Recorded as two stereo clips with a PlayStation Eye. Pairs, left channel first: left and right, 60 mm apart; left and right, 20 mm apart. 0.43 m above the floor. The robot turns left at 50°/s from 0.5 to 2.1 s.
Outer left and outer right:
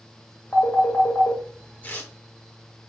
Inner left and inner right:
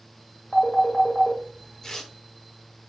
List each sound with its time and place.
0.5 s a phone ringing: 40° left (ahead or behind), 1.4 m; by 1.4 s 60° left (ahead or behind), 1.4 m
1.8 s tearing paper: 30° left (ahead or behind), 0.7 m; by 2.1 s 25° left (ahead or behind), 0.7 m